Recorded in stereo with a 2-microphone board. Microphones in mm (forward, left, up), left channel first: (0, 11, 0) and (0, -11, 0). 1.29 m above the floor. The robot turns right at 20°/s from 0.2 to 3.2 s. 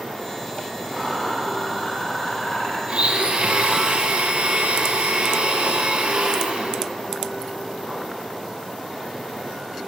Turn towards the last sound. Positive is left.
turn(degrees=-50)  # may be behind; listen again after turning